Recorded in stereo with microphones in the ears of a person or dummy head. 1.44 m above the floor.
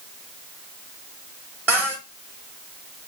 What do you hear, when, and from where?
1.7 s a cupboard door: 10° right (ahead or behind), 0.6 m